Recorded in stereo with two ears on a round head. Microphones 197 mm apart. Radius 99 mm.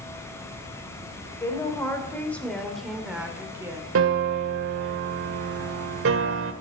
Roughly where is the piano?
Right.